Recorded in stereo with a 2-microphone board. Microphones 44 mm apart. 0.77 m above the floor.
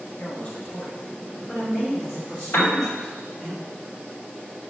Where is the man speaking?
45° left (ahead or behind), 1.3 m; by 3.5 s 5° right (ahead or behind), 2.5 m.